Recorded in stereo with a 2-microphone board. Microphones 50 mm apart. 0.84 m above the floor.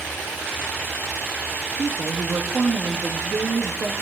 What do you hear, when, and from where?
1.8 s a woman speaking: 60° right (ahead or behind), 1.6 m